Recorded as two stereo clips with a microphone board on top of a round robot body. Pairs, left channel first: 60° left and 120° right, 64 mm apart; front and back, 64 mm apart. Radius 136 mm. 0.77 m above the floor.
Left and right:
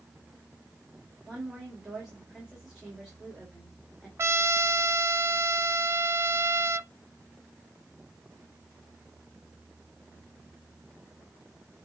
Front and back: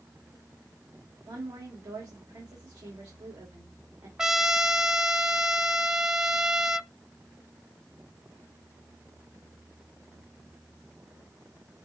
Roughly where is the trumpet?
Right.